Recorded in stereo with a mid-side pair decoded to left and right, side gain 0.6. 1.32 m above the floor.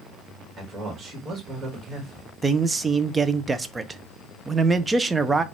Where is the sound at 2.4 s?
20° right, 0.6 m.